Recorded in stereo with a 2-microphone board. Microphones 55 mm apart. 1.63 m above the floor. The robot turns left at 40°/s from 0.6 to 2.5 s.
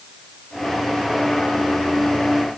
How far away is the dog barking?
I don't hear a dog barking.